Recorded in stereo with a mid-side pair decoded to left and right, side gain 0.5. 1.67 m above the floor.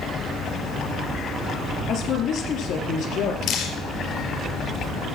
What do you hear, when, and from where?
1.9 s a woman speaking: 65° left, 4 m
3.4 s dripping: 65° left, 4.5 m